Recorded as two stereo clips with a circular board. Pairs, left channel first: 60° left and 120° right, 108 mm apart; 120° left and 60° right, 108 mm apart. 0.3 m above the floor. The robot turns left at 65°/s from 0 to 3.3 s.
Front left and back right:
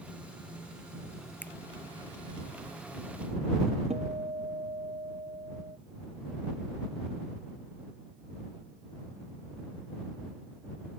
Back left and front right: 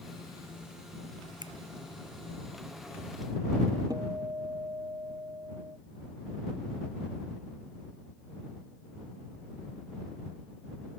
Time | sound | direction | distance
1.4 | a finger snap | 15° right | ?
3.9 | a guitar | 115° right | ?